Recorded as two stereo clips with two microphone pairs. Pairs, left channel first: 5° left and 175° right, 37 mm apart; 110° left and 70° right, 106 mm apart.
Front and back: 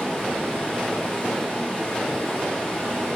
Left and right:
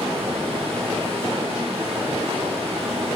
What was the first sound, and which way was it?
Running water, 55° right.